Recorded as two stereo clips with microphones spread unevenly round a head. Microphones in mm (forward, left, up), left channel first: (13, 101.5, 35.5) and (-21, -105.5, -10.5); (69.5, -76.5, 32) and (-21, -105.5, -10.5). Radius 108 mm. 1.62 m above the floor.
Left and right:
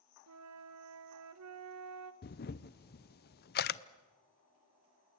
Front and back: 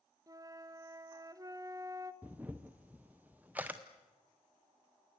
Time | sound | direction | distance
0.3 | a flute | 95° right | 1.2 m
2.2 | a camera shutter | 100° left | 0.6 m